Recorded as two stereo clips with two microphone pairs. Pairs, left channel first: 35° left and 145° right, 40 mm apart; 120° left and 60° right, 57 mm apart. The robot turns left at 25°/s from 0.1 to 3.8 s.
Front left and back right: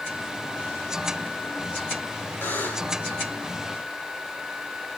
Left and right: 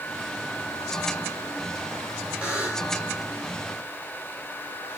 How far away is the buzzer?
About 4.5 m.